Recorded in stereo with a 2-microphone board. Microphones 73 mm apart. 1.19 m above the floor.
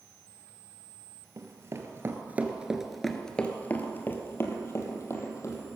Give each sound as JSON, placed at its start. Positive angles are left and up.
{"t": 1.4, "sound": "running footsteps", "side_deg": -45, "distance_m": 1.7}